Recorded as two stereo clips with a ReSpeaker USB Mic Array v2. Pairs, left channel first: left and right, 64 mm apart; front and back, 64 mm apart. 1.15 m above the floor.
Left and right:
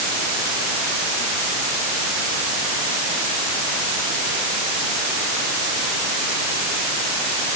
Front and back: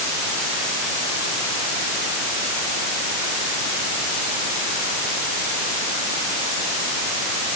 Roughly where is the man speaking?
No man speaking in this recording.